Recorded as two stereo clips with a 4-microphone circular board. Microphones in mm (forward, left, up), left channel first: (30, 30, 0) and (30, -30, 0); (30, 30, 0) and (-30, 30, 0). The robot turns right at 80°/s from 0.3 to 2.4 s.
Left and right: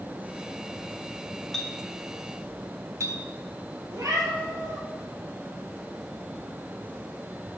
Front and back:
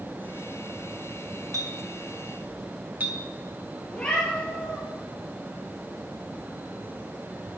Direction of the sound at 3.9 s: 75° right.